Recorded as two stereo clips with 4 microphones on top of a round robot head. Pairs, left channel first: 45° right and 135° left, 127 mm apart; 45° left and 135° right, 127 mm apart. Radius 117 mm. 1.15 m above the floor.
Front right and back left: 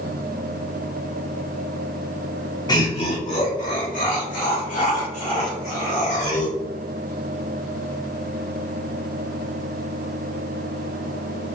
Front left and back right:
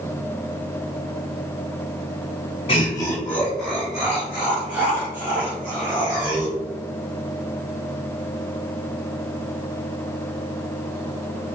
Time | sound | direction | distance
2.7 | laughter | 10° left | 0.7 m